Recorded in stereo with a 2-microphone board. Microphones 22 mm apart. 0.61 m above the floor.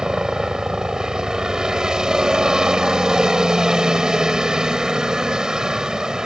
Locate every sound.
0.0 s a helicopter: 30° right (ahead or behind)